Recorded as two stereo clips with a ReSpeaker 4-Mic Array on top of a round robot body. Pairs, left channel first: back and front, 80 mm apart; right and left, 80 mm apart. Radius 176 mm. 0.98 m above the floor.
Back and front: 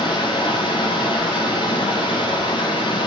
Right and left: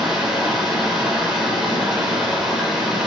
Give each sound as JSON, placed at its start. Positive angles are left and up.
{"t": 0.0, "sound": "running water", "azimuth_deg": 170, "distance_m": 9.0}